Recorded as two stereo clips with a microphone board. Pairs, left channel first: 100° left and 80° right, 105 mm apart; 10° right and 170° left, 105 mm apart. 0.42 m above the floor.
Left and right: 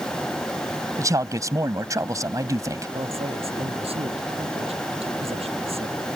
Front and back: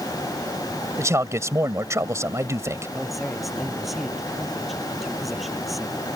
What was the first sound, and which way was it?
A man speaking, 130° right.